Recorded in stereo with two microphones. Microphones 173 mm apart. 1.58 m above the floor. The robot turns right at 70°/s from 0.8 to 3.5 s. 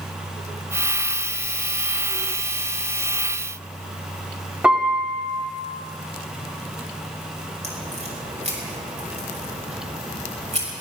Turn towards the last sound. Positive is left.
turn(degrees=-40)  # may be behind; listen again after turning